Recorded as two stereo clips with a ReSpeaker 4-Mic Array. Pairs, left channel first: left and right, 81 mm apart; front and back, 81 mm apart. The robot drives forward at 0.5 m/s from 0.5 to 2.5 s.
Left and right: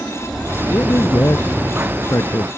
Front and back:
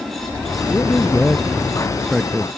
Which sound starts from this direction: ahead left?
A man speaking, at 0.7 s.